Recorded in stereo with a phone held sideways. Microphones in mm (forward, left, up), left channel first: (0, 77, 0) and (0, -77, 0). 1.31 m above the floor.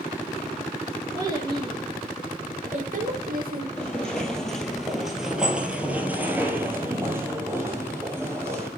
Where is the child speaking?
25° right (ahead or behind), 2 m; by 3.7 s 75° right (ahead or behind), 1.6 m.